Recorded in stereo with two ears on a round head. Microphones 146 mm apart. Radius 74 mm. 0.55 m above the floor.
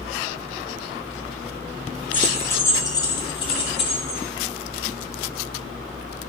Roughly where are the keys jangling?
Centre.